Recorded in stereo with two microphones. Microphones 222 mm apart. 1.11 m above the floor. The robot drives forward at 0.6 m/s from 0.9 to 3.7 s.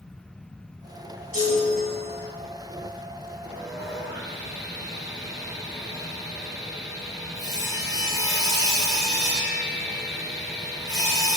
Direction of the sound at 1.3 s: 75° left (ahead or behind).